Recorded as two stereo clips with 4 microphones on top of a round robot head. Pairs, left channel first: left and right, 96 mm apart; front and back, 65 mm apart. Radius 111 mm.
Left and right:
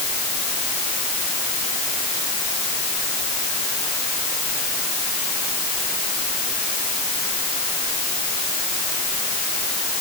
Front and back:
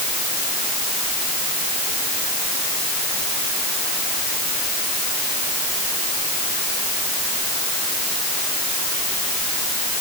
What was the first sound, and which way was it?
Only background noise.